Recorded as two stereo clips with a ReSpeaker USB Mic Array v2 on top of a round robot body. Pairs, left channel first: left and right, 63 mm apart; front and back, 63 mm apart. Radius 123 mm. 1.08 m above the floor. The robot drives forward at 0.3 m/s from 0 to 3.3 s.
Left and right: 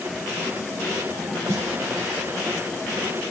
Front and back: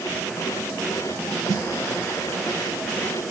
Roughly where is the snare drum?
Behind right.